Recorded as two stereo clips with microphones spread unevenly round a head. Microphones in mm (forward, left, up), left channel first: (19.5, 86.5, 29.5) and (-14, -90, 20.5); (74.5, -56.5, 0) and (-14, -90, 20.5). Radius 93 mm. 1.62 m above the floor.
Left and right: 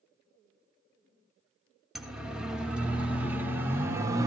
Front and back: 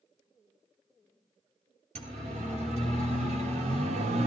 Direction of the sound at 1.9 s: 170° left.